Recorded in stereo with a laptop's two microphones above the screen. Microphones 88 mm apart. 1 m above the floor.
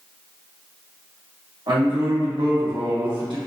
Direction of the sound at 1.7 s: 65° right (ahead or behind).